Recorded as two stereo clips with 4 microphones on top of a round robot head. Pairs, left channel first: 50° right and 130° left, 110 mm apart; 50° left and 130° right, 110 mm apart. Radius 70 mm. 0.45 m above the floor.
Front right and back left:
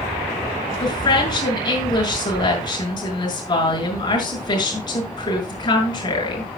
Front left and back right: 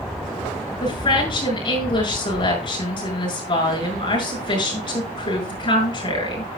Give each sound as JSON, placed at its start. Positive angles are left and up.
{"t": 0.8, "sound": "a woman speaking", "azimuth_deg": 5, "distance_m": 6.5}